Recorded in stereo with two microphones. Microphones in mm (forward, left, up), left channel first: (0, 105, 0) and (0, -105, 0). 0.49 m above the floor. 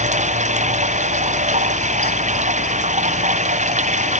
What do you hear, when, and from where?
0.0 s running water: 35° right (ahead or behind)